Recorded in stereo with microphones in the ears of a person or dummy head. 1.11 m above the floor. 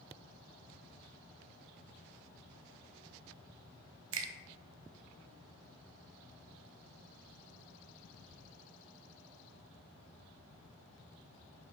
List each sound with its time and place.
4.1 s a finger snap: 80° right, 0.6 m